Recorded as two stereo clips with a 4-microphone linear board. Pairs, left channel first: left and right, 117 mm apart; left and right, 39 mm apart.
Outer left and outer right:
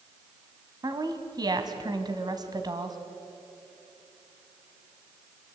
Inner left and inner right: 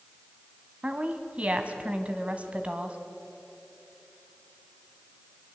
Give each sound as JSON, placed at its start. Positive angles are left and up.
{"t": 0.8, "sound": "a woman speaking", "side_deg": -35, "distance_m": 2.0}